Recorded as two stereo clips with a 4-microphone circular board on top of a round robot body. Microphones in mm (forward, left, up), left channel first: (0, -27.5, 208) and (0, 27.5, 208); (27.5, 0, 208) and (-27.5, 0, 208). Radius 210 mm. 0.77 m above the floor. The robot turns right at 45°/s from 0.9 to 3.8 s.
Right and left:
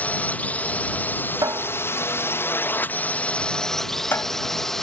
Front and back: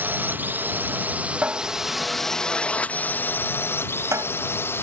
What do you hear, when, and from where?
0.0 s a drone: 140° right; by 4.8 s 10° right
1.4 s a cupboard door: 110° left; by 4.2 s 140° right